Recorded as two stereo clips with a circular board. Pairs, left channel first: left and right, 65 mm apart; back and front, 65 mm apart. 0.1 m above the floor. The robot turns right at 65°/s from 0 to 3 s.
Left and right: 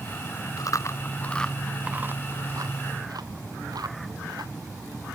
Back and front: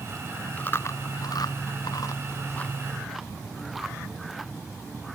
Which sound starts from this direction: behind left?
Chewing, at 0.6 s.